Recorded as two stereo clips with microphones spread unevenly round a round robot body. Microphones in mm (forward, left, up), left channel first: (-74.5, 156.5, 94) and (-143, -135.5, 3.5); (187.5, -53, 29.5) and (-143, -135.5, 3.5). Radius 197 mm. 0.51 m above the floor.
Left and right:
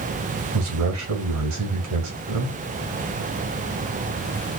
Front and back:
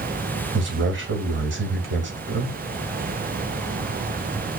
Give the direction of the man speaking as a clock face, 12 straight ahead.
4 o'clock.